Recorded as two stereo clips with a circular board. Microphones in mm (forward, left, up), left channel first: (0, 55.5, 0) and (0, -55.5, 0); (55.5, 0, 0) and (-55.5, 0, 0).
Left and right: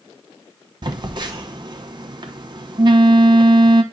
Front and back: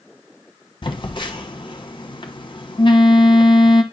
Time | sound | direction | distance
0.8 | a phone buzzing | 45° right | 1.0 m